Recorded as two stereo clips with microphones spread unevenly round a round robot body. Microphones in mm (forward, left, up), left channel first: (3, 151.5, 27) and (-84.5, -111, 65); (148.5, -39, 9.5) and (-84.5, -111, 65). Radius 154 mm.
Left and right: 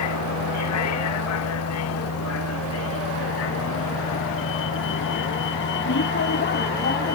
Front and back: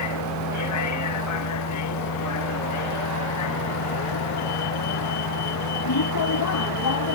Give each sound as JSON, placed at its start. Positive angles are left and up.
{"t": 0.0, "sound": "a vehicle", "azimuth_deg": 35}